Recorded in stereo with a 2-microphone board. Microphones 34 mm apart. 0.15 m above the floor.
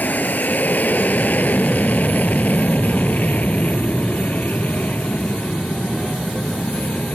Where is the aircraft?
55° left (ahead or behind); by 7.2 s 50° left (ahead or behind).